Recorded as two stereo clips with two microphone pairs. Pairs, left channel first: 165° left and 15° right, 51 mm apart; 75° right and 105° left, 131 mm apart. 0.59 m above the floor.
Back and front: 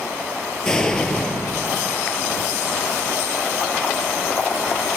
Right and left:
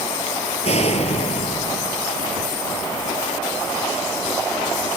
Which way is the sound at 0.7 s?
115° right.